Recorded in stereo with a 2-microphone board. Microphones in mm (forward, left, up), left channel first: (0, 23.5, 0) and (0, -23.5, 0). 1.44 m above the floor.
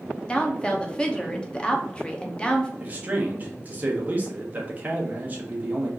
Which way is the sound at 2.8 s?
30° right (ahead or behind).